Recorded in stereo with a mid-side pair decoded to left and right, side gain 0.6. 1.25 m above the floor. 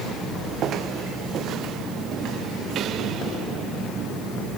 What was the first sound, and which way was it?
Only background noise.